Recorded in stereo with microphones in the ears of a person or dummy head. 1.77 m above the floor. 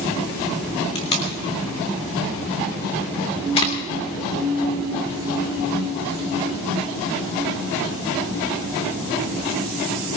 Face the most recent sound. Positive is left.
turn(degrees=30)  # may be behind; listen again after turning